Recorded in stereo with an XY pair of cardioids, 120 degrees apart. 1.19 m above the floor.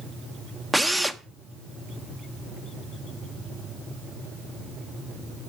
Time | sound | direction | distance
0.7 | a drill | 10° right | 0.9 m